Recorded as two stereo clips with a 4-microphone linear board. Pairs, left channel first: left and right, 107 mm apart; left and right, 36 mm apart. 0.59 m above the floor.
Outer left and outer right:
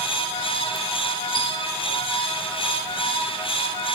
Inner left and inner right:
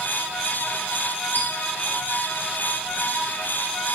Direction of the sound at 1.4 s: 60° left (ahead or behind).